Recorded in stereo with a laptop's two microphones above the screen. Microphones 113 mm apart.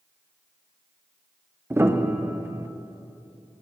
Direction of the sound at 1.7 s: 20° right (ahead or behind).